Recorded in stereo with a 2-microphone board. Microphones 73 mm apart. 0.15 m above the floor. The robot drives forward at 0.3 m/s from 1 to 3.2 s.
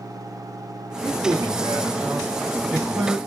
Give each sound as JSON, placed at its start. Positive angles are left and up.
{"t": 1.0, "sound": "a man speaking", "side_deg": -30, "distance_m": 2.0}